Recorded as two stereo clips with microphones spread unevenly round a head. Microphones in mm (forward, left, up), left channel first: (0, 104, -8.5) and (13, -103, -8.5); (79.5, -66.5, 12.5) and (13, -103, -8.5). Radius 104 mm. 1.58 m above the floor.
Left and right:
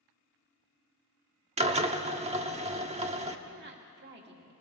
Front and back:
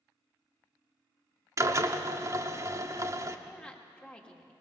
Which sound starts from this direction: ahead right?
A woman speaking, at 3.5 s.